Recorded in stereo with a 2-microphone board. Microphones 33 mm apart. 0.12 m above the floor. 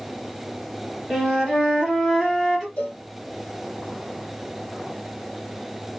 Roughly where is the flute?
Centre.